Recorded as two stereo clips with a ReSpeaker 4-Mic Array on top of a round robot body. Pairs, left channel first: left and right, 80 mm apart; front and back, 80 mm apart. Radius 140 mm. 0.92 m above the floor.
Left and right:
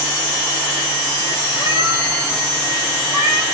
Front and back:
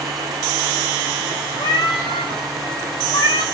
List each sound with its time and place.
1.6 s a cat meowing: 45° right, 0.8 m; by 3.4 s 30° right, 1.6 m